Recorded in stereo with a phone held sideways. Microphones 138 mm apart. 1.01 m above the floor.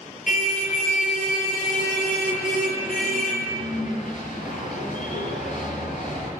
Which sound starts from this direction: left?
A car horn, at 0.3 s.